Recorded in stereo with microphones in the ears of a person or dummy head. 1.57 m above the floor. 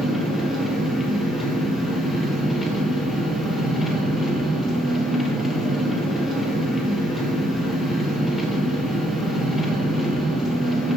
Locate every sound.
0.0 s an engine running: 5° right (ahead or behind), 1.4 m